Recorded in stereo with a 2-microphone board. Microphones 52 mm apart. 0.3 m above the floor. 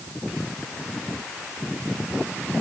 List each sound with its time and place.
Only background noise.